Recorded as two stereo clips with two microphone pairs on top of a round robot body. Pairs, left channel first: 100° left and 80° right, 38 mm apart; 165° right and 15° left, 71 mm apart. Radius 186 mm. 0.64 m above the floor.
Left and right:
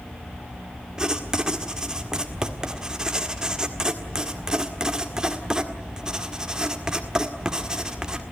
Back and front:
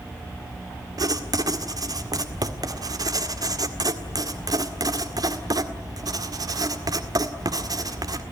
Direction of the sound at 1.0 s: 10° right.